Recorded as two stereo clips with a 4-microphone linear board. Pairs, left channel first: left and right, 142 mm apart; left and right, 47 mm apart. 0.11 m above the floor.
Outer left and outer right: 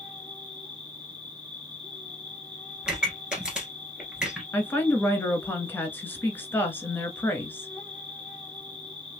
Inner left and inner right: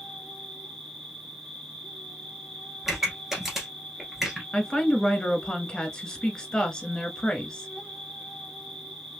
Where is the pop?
5° right (ahead or behind), 1.5 m.